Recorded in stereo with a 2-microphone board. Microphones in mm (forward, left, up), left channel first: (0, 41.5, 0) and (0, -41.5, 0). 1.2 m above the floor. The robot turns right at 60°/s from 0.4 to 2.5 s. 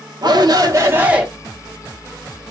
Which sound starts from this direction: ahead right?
A shout, at 0.2 s.